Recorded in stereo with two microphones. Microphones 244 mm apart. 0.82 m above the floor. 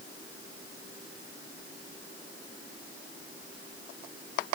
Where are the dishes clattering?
No dishes clattering in this recording.